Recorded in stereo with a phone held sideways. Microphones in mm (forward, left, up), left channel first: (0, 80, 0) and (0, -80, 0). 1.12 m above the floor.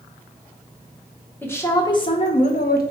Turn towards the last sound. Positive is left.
turn(degrees=70)  # may be behind; listen again after turning